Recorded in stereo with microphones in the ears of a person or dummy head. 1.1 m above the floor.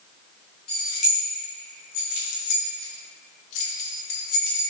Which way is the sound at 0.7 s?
30° left (ahead or behind).